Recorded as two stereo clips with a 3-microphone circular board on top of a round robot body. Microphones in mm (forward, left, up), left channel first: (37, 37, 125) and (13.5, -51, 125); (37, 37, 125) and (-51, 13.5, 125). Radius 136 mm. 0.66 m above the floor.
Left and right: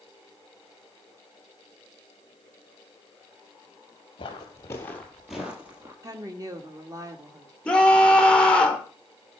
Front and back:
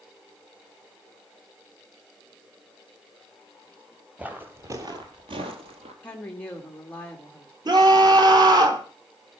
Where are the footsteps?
120° left, 1.4 m; by 5.9 s 175° right, 1.6 m.